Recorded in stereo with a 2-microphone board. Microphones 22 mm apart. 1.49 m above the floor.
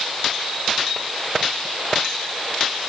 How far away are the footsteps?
No footsteps in this recording.